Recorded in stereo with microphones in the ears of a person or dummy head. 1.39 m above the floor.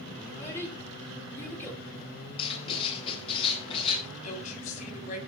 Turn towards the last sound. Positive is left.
turn(degrees=40)  # may be behind; listen again after turning